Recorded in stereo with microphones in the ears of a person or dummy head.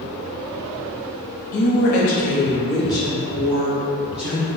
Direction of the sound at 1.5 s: 50° left (ahead or behind).